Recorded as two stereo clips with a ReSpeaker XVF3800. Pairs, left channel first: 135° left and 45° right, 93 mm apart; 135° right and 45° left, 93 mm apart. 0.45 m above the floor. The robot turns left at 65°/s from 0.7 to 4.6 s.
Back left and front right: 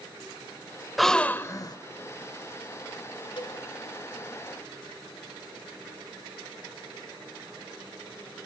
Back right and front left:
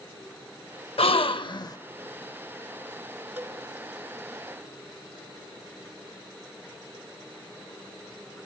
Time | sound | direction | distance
1.0 | a gasp | 135° right | 0.5 m
3.4 | a cowbell | 115° left | 1.6 m